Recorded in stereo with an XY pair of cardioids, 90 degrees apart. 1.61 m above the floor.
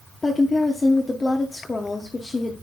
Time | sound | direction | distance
0.2 | a woman speaking | 20° left | 0.8 m